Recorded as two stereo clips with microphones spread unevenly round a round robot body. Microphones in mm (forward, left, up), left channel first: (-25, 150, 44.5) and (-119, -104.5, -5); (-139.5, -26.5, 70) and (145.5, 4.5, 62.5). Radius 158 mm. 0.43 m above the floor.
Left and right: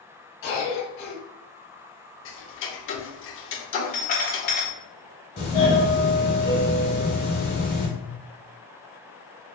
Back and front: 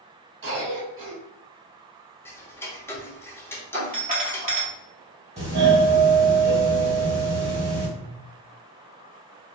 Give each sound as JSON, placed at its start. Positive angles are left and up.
{"t": 0.4, "sound": "a cough", "azimuth_deg": 30, "distance_m": 1.5}
{"t": 2.2, "sound": "ticking", "azimuth_deg": 105, "distance_m": 0.6}
{"t": 3.7, "sound": "a doorbell", "azimuth_deg": 20, "distance_m": 1.5}
{"t": 5.4, "sound": "a doorbell", "azimuth_deg": 35, "distance_m": 1.6}